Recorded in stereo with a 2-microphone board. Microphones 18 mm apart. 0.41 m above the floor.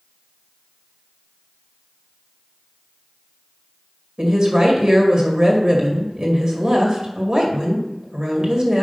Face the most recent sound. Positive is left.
turn(degrees=-50)  # may be behind; listen again after turning